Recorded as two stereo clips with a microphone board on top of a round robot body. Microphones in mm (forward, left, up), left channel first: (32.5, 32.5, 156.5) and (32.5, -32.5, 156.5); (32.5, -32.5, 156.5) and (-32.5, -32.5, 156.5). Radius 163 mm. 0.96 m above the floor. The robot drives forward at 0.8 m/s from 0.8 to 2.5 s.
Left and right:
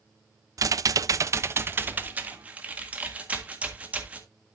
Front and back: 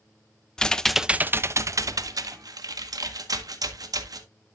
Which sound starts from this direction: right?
Typing on a keyboard, at 0.6 s.